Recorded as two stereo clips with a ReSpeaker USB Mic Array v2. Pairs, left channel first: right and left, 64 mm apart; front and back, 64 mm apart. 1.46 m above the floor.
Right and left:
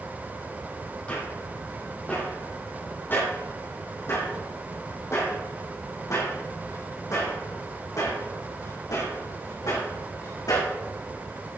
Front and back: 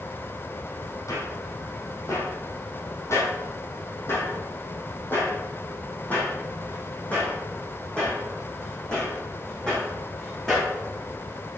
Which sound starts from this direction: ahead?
Footsteps, at 1.1 s.